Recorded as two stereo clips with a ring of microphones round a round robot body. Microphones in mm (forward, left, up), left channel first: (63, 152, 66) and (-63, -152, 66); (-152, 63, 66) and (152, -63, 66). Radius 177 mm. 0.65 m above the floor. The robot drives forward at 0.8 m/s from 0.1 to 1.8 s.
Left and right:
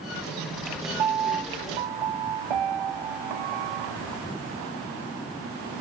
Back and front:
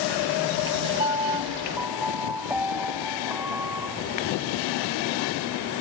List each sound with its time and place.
1.0 s a piano: 95° right; by 4.0 s 110° right